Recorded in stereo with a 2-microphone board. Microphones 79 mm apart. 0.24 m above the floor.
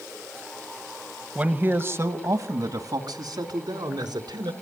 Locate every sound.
1.4 s a man speaking: 15° right (ahead or behind), 1.2 m; by 4.5 s 70° right (ahead or behind), 3 m